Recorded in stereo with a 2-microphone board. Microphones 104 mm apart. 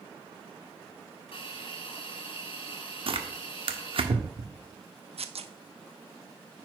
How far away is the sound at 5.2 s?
About 0.6 m.